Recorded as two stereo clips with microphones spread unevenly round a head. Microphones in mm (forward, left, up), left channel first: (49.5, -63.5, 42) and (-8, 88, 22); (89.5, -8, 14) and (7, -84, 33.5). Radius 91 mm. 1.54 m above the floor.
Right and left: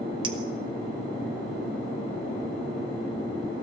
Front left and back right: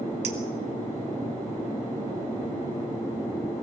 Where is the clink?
175° left, 1.6 m.